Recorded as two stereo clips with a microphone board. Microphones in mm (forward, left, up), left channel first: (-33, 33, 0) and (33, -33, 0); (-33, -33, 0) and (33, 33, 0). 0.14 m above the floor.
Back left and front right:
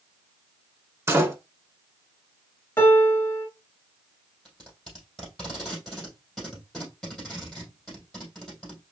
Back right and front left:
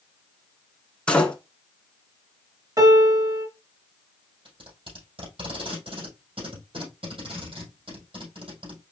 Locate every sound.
1.1 s a door slam: 70° right, 1.0 m
2.8 s a piano: 80° left, 1.7 m
4.5 s tape being pulled: 45° left, 3.5 m